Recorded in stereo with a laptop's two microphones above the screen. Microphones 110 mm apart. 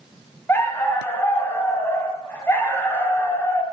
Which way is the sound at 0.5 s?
20° left (ahead or behind).